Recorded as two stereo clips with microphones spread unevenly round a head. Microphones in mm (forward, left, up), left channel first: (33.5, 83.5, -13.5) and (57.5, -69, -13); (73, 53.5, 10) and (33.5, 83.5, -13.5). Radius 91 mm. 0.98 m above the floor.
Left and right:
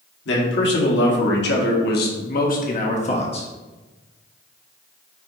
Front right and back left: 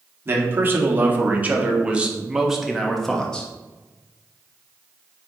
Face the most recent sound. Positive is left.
turn(degrees=40)